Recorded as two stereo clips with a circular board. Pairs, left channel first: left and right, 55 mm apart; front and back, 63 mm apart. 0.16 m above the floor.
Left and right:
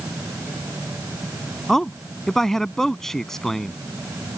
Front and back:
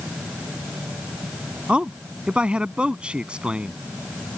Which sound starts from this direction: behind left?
A man speaking, at 1.7 s.